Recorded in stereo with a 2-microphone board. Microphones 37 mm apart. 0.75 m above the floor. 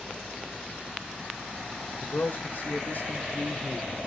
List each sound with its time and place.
2.0 s a man speaking: 40° left (ahead or behind), 0.7 m; by 4.1 s 45° left (ahead or behind), 2 m